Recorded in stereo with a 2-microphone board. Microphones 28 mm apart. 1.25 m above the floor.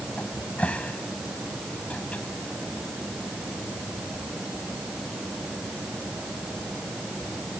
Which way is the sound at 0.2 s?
60° left (ahead or behind).